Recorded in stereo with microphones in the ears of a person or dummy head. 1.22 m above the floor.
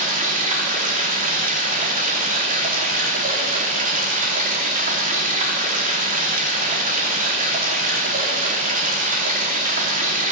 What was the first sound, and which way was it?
Running water, 40° right (ahead or behind).